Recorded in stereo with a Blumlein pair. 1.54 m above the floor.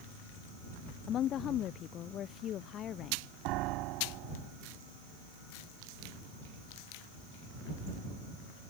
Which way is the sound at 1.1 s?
30° left.